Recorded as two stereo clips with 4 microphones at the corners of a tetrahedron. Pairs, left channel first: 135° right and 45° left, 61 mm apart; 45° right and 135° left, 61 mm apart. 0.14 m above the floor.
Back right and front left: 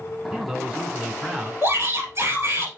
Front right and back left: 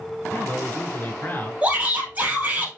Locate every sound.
0.3 s a man speaking: 25° right, 1.4 m
1.6 s a shout: 75° left, 2.5 m